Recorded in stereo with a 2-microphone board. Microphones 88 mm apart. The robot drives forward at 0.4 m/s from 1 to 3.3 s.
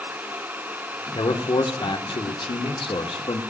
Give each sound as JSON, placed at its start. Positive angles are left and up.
{"t": 1.1, "sound": "a man speaking", "side_deg": 60, "distance_m": 1.5}